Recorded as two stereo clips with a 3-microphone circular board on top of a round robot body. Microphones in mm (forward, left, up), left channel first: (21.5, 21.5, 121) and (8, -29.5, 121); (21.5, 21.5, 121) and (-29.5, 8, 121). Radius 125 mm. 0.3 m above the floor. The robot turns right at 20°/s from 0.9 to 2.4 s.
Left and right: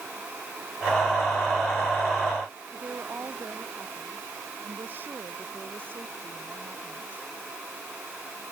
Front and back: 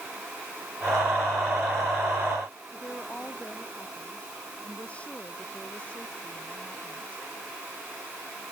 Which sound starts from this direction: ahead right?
A woman speaking, at 2.7 s.